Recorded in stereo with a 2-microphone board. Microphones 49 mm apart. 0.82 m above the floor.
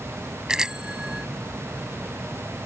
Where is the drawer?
No drawer in this recording.